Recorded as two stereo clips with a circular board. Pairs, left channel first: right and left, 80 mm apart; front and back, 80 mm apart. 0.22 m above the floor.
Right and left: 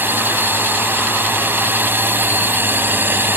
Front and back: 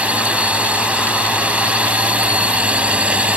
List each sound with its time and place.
0.0 s a drone: 120° left